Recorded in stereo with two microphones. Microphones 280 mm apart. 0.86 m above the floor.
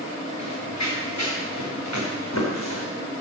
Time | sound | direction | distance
0.4 | running footsteps | 75° left (ahead or behind) | 5 m